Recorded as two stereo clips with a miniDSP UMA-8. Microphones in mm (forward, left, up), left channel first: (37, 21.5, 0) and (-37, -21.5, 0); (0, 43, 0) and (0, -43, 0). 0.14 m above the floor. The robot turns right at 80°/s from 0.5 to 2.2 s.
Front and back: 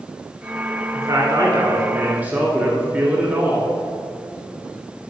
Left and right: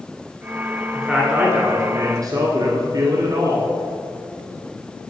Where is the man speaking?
170° left, 1.9 m; by 3.7 s 90° right, 1.9 m.